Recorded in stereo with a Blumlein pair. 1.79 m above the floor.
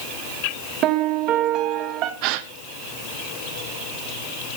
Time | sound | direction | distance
0.8 | a piano | 35° right | 1.6 m
2.2 | a gasp | 45° right | 1.0 m